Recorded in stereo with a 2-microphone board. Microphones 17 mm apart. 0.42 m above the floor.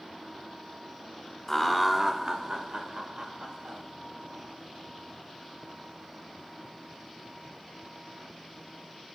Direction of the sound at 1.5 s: 15° left (ahead or behind).